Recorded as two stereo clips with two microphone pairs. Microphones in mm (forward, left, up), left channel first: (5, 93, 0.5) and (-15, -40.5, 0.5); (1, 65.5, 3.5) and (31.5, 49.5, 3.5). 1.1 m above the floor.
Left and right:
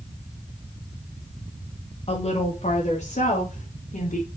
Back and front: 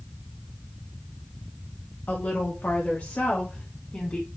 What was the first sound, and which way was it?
A woman speaking, 120° left.